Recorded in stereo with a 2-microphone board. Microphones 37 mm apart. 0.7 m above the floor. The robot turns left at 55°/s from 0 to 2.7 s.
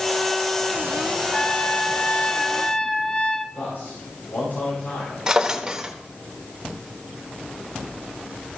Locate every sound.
1.3 s a trumpet: 125° left, 0.5 m; by 3.5 s 50° left, 0.5 m
3.5 s a man speaking: 70° left (ahead or behind), 4.5 m
5.3 s a drawer: 15° right (ahead or behind), 0.9 m